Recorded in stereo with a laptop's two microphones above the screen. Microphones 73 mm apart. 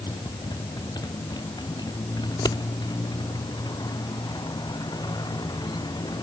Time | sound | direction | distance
0.0 | a motorcycle | 65° left (ahead or behind) | ?
2.3 | scissors | 70° left (ahead or behind) | ?